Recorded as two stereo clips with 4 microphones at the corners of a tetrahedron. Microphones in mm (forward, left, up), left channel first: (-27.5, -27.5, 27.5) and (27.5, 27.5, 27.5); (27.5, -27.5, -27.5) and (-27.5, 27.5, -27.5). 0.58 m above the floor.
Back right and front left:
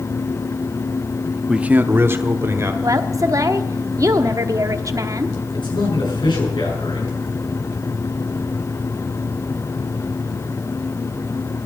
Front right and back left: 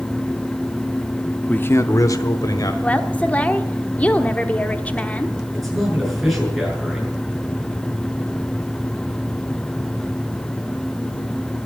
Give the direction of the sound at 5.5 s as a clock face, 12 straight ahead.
5 o'clock.